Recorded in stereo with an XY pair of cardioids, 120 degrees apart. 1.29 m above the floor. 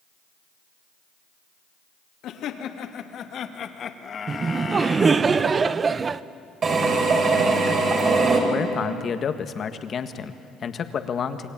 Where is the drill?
40° right, 5 m.